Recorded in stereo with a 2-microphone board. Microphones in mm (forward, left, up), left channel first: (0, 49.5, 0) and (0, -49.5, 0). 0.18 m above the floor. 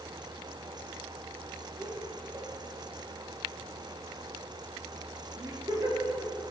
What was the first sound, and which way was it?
Laughter, 30° right (ahead or behind).